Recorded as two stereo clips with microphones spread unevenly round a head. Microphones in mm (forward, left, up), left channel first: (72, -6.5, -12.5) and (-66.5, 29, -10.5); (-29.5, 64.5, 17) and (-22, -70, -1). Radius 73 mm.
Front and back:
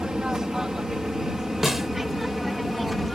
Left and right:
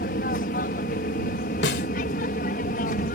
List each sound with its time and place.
0.0 s an aircraft: 80° left; by 3.2 s 75° left
1.6 s a snare drum: 75° left